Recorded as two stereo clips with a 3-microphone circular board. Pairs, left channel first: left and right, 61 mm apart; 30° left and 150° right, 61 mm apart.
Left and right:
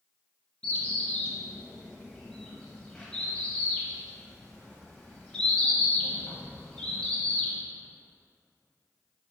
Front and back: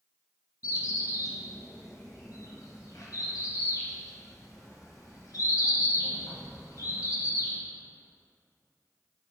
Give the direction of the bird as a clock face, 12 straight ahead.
11 o'clock.